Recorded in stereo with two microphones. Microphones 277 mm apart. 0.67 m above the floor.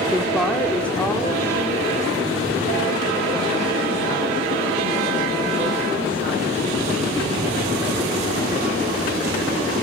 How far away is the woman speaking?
About 1.1 m.